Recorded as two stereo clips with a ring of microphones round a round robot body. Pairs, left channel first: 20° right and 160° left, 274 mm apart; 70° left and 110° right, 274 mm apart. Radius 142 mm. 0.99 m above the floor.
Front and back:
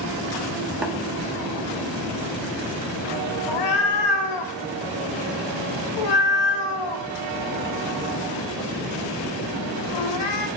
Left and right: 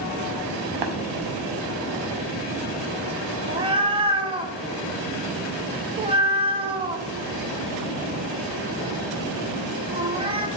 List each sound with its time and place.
0.8 s tapping: 115° right, 0.9 m
3.5 s a cat meowing: 40° right, 0.6 m